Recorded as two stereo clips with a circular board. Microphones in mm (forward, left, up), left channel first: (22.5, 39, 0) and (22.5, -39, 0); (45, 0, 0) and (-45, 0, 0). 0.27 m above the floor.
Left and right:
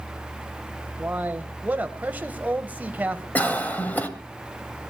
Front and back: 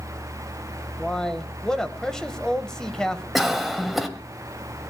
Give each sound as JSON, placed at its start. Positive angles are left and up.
{"t": 1.0, "sound": "a man speaking", "azimuth_deg": -70, "distance_m": 0.9}
{"t": 3.4, "sound": "a cough", "azimuth_deg": 95, "distance_m": 1.3}